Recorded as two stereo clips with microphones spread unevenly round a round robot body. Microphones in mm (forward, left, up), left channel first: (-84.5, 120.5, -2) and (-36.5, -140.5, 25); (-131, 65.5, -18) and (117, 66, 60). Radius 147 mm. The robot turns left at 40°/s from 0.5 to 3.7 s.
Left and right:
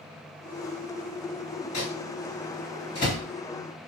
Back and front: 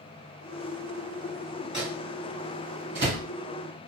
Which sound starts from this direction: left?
A microwave, at 1.7 s.